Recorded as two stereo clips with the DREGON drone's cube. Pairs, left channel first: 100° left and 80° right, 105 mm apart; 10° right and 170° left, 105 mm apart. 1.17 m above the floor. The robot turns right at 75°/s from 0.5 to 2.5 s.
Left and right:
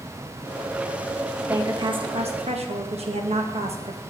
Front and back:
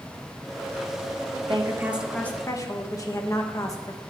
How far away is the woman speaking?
About 1.2 m.